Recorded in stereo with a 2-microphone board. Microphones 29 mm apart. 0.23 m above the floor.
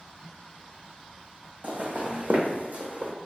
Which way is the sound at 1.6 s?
60° right (ahead or behind).